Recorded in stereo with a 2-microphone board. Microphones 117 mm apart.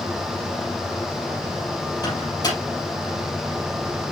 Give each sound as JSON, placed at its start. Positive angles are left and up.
{"t": 2.0, "sound": "a microwave", "side_deg": 35, "distance_m": 4.5}